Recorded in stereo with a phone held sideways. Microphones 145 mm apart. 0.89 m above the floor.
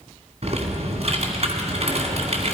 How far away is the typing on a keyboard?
About 2 m.